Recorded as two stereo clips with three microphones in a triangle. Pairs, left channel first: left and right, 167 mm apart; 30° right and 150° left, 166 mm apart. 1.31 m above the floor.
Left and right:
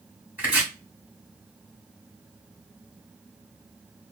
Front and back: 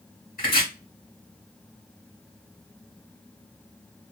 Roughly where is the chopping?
Ahead.